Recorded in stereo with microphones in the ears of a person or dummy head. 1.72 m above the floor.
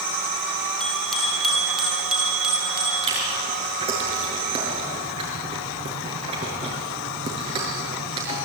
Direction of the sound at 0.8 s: 5° left (ahead or behind).